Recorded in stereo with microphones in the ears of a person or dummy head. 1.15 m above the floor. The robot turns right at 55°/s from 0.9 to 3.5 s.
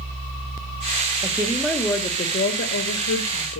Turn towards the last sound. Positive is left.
turn(degrees=100)